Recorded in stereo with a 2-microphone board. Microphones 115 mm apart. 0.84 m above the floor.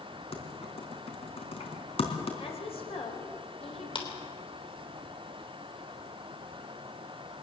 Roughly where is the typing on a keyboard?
Left.